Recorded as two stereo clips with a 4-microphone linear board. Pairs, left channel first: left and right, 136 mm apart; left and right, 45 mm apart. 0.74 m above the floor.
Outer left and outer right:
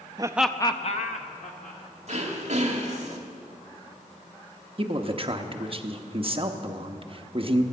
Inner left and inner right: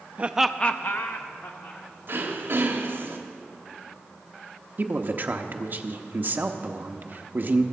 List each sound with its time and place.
0.2 s laughter: 30° right (ahead or behind), 0.6 m; by 1.8 s 75° left (ahead or behind), 1.6 m
2.1 s throat clearing: 60° right (ahead or behind), 1.4 m
4.8 s a man speaking: 40° right (ahead or behind), 0.8 m